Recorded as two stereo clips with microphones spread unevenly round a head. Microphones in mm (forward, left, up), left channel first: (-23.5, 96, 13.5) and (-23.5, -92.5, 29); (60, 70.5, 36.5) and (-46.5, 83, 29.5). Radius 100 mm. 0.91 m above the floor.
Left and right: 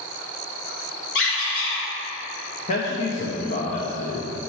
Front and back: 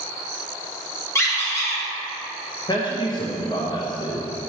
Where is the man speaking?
40° left, 0.8 m.